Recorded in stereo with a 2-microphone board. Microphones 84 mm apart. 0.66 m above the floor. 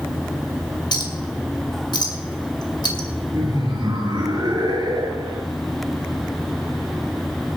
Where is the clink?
65° left (ahead or behind), 2.5 m.